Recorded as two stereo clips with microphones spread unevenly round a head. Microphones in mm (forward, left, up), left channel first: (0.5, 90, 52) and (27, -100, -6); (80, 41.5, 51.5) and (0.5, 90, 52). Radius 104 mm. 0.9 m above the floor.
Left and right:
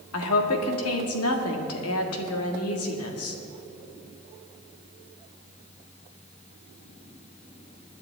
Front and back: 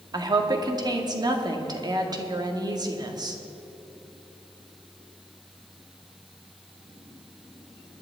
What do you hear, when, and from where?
0.1 s a woman speaking: 110° left, 1.9 m